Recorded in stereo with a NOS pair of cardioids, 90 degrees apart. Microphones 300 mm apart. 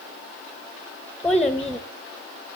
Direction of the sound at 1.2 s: 5° left.